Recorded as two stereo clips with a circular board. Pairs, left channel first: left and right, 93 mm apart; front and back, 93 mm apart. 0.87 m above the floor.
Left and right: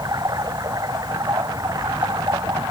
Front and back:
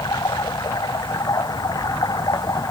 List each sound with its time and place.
0.0 s running water: 45° right